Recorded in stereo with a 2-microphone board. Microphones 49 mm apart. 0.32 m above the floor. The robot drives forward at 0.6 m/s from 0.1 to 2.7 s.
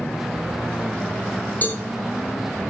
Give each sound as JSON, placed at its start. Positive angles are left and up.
{"t": 1.6, "sound": "a cowbell", "side_deg": 35, "distance_m": 4.0}